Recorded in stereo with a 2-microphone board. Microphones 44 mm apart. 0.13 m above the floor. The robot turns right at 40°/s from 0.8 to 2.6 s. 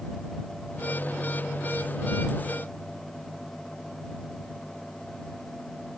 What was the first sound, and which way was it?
Only background noise.